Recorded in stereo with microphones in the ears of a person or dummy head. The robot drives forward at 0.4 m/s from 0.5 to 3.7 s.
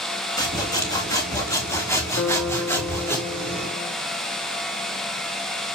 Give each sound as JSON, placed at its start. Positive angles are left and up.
{"t": 0.4, "sound": "sawing", "side_deg": 20, "distance_m": 2.0}
{"t": 2.2, "sound": "a guitar", "side_deg": 70, "distance_m": 1.7}